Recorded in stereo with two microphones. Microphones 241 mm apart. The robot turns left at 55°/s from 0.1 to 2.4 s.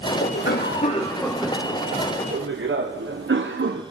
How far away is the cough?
About 1.0 m.